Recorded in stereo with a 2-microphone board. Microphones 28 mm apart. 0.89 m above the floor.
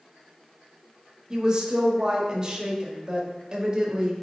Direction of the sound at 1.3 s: 25° right (ahead or behind).